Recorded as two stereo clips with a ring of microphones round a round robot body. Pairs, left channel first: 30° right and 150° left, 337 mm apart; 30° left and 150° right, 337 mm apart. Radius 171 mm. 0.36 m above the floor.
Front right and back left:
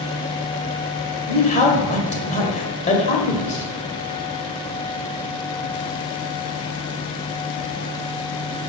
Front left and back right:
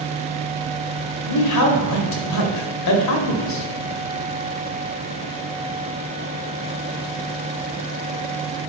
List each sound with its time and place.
1.3 s a man speaking: 35° left, 1.8 m